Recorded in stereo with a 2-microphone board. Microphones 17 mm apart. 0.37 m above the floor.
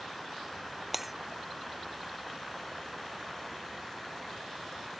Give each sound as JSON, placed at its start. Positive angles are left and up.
{"t": 0.9, "sound": "breaking glass", "side_deg": -15}